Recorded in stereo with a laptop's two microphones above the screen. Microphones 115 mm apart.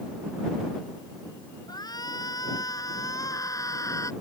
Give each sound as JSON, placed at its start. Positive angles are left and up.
{"t": 1.7, "sound": "a shout", "side_deg": 35}